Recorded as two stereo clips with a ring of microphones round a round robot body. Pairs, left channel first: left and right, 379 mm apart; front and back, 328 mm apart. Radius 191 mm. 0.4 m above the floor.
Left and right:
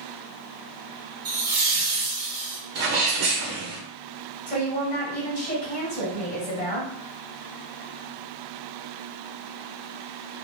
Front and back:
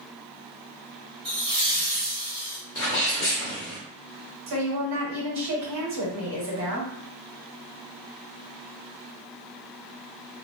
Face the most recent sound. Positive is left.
turn(degrees=155)